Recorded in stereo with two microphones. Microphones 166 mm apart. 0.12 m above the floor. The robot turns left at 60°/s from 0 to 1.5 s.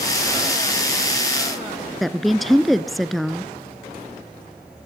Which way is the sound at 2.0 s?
Centre (ahead or behind).